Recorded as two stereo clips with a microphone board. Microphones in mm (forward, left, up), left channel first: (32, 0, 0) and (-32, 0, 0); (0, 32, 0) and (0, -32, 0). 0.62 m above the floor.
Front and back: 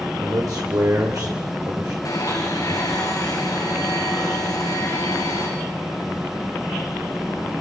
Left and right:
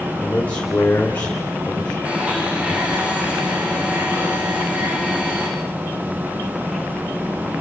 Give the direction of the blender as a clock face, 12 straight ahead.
1 o'clock.